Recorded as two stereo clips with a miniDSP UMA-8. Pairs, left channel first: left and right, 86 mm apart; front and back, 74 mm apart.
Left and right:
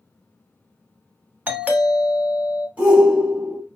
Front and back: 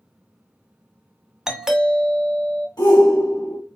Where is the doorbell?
115° right, 1.2 m.